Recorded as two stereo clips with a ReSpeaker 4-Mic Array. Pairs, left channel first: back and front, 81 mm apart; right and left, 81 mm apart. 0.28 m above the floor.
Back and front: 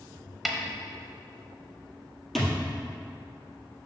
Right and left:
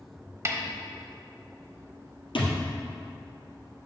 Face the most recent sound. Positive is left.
turn(degrees=-90)